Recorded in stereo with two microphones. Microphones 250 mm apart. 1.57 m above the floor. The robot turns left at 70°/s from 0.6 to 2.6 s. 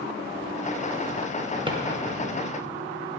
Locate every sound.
1.7 s a drawer: 20° right (ahead or behind), 0.8 m; by 1.8 s 15° right (ahead or behind), 0.8 m